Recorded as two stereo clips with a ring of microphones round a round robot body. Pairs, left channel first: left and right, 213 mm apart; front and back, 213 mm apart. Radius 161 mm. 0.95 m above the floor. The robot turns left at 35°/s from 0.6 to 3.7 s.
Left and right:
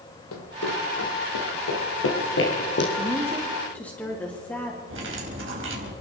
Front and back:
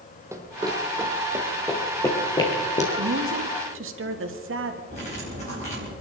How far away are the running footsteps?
About 1.9 m.